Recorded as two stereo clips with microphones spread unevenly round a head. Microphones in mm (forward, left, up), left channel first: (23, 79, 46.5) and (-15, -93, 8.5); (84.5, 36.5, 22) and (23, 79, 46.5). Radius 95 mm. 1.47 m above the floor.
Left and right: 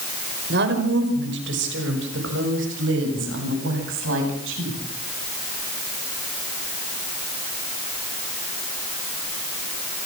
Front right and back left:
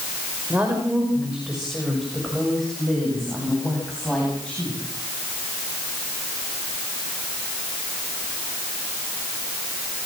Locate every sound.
0.5 s a woman speaking: 135° right, 5.5 m; by 4.8 s 120° right, 9.5 m